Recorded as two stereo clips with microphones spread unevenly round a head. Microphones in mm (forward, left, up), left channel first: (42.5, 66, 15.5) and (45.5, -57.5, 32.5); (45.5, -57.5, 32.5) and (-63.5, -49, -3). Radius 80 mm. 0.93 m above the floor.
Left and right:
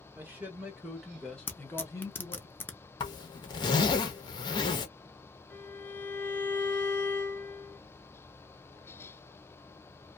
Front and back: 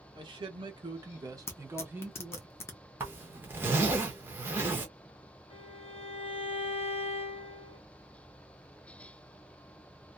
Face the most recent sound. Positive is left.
turn(degrees=35)